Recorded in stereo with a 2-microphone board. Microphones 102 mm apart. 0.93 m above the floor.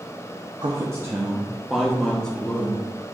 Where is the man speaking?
40° right (ahead or behind), 0.7 m; by 2.8 s 15° left (ahead or behind), 1.4 m.